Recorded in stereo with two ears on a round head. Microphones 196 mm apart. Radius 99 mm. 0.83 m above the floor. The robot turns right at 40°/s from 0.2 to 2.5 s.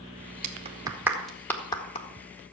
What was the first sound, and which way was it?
A clap, 35° right (ahead or behind).